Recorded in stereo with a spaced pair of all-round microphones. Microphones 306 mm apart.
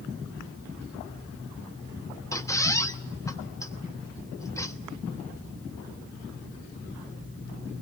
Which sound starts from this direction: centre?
A squeak, at 2.3 s.